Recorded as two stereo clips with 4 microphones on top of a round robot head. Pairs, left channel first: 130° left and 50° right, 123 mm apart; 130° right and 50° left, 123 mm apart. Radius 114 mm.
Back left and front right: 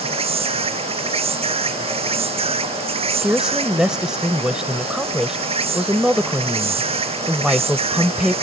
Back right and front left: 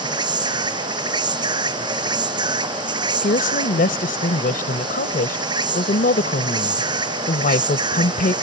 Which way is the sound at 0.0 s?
5° right.